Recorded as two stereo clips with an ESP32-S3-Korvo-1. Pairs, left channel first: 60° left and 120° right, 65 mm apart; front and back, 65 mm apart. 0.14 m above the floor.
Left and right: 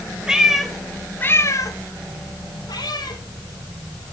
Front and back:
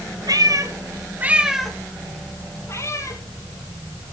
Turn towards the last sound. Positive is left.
turn(degrees=40)